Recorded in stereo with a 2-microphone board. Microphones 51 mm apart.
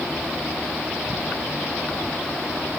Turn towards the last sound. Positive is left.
No sound to turn to.